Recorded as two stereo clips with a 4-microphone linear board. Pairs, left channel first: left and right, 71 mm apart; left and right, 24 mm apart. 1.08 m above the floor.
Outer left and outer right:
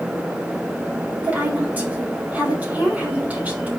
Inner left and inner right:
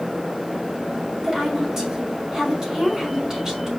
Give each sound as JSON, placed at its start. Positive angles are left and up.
{"t": 1.2, "sound": "a woman speaking", "side_deg": -20, "distance_m": 3.5}